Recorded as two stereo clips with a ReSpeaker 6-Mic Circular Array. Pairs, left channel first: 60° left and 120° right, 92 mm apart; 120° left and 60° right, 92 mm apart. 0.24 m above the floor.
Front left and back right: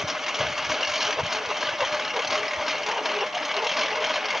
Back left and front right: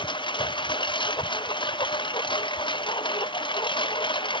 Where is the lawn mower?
155° left; by 4.4 s 150° left.